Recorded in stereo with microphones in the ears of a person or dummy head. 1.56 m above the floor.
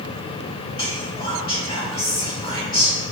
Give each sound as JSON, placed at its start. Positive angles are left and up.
{"t": 0.8, "sound": "whispering", "side_deg": 25, "distance_m": 1.5}